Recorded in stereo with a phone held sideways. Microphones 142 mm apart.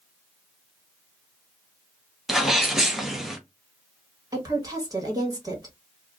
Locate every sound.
2.3 s a sneeze: centre (ahead or behind), 1.0 m
4.3 s a woman speaking: 25° right (ahead or behind), 1.5 m